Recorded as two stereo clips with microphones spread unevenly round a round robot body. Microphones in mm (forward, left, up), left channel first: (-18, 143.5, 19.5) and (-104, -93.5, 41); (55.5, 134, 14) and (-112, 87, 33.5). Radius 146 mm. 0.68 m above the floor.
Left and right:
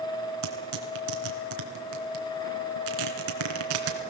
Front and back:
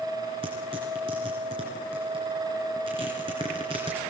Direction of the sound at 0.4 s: 95° right.